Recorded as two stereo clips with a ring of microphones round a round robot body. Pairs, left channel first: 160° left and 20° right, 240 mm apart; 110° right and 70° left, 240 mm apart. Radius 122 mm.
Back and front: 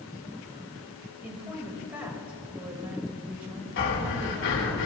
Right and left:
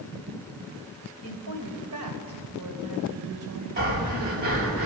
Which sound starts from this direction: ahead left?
A woman speaking, at 1.2 s.